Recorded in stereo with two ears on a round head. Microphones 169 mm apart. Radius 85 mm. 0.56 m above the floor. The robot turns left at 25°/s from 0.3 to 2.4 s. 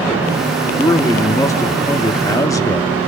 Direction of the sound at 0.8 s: 15° left (ahead or behind).